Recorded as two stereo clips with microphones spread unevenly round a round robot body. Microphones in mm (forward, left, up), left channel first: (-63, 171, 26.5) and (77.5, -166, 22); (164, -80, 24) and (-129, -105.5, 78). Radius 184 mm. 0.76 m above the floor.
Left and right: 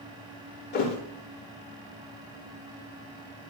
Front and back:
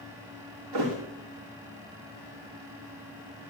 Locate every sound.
0.7 s a thud: straight behind, 5 m